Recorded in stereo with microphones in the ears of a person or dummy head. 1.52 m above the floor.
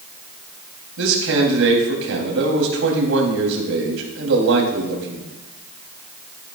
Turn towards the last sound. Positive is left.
turn(degrees=-75)  # may be behind; listen again after turning